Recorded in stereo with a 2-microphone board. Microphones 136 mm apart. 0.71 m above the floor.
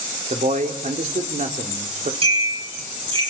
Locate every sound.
0.3 s a man speaking: 65° right (ahead or behind), 2.5 m
2.2 s a bell: 40° right (ahead or behind), 9 m